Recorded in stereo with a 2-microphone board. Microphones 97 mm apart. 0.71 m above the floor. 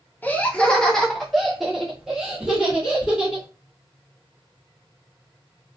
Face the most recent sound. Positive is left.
turn(degrees=-10)  # may be behind; listen again after turning